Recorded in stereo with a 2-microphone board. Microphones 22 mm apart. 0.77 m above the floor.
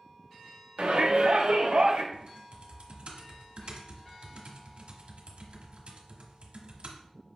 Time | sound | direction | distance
0.8 | a shout | 60° right (ahead or behind) | 1.2 m
2.1 | typing on a keyboard | 70° right (ahead or behind) | 1.2 m